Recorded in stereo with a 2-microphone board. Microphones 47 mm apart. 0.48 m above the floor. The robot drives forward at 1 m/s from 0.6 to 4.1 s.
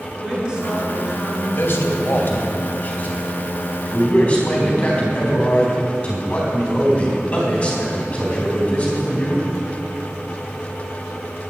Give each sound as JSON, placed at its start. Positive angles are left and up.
{"t": 0.2, "sound": "a woman speaking", "side_deg": -20, "distance_m": 5.5}
{"t": 1.5, "sound": "a man speaking", "side_deg": 60, "distance_m": 2.0}